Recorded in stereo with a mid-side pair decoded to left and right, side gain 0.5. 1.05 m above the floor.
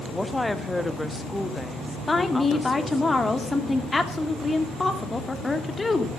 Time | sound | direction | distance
0.1 | a woman speaking | 10° left | 1.5 m
2.1 | a woman speaking | 20° left | 2.5 m